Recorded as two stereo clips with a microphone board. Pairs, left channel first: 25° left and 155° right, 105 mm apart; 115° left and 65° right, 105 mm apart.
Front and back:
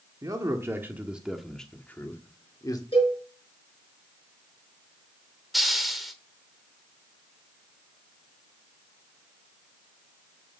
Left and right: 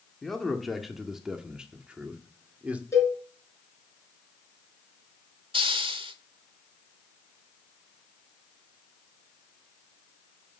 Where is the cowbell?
50° left, 5 m.